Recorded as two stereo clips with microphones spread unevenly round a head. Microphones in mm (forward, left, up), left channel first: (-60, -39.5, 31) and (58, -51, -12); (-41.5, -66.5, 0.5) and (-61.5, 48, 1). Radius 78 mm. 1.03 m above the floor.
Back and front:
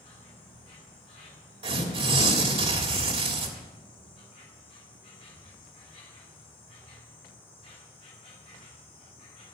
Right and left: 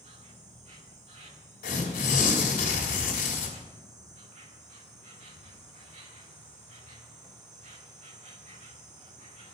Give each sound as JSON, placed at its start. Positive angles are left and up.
{"t": 0.0, "sound": "an insect", "azimuth_deg": 115, "distance_m": 1.9}
{"t": 1.6, "sound": "tearing paper", "azimuth_deg": -45, "distance_m": 3.0}